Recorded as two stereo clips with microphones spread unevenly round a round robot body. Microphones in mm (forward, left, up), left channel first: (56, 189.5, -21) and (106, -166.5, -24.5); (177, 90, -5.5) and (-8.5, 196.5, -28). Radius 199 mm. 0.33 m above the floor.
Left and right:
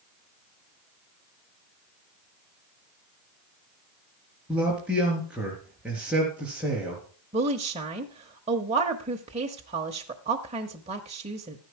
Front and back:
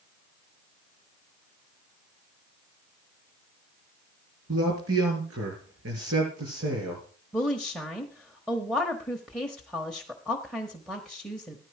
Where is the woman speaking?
130° right, 0.8 m.